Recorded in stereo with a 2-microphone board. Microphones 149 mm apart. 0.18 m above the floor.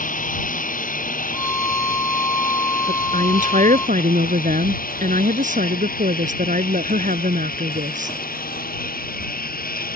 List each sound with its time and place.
0.0 s a lawn mower: 65° left (ahead or behind); by 10.0 s 80° left
1.3 s a violin: 20° left (ahead or behind)
2.9 s a woman speaking: 60° right (ahead or behind)